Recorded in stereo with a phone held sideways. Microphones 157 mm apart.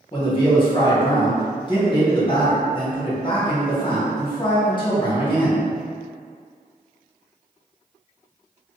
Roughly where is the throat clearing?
No throat clearing in this recording.